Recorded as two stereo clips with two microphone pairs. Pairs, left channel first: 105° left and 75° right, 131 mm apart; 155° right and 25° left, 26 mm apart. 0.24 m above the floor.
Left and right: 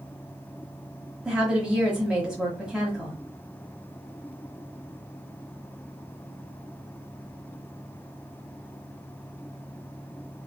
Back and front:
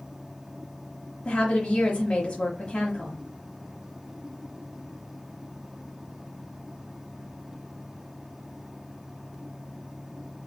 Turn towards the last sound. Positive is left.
turn(degrees=-155)